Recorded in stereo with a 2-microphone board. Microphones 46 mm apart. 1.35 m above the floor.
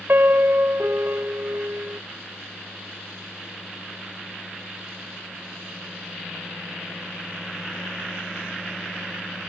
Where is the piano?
55° right (ahead or behind).